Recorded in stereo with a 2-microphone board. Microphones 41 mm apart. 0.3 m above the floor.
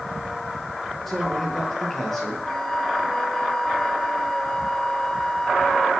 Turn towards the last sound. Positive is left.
turn(degrees=10)  # may be behind; listen again after turning